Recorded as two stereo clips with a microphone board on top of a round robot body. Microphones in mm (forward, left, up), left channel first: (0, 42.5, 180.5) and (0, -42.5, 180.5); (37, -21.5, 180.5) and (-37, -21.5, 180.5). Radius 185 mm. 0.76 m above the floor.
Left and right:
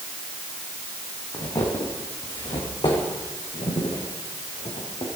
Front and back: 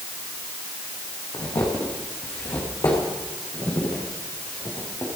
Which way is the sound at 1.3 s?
45° left.